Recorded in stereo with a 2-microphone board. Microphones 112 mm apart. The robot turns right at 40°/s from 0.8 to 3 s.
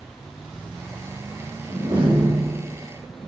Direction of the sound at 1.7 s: 140° right.